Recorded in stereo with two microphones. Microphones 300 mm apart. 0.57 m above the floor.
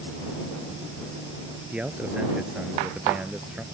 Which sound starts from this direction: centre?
A man speaking, at 1.7 s.